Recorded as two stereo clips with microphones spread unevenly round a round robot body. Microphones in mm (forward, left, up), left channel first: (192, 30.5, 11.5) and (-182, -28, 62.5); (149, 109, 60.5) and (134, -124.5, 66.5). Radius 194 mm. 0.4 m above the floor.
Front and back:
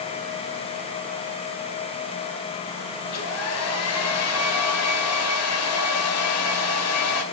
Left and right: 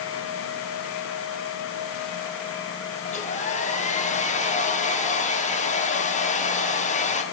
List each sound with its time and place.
3.0 s a hair dryer: 35° left, 2 m